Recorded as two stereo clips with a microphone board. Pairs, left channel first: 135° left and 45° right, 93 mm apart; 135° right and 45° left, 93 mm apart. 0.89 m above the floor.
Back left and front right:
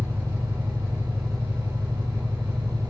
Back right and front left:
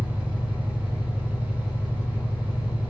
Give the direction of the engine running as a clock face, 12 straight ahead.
4 o'clock.